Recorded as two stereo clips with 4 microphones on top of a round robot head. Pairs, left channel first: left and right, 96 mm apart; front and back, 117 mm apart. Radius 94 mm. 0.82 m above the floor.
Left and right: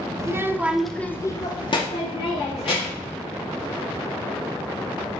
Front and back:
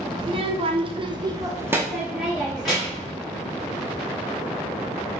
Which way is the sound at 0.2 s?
145° right.